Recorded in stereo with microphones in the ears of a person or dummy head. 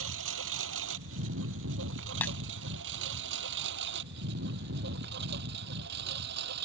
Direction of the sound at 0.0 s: 75° right (ahead or behind).